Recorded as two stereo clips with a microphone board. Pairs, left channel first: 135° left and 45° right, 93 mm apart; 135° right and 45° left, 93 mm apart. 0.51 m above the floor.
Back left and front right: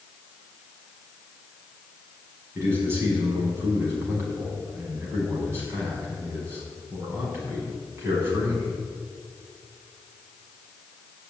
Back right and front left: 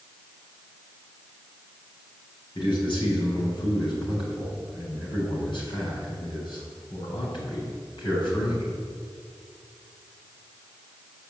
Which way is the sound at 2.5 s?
110° right.